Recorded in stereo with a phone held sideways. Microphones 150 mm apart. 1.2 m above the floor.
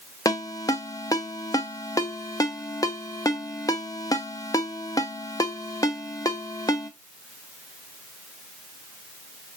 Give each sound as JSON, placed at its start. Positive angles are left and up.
{"t": 0.2, "sound": "a ringtone", "side_deg": 25, "distance_m": 0.7}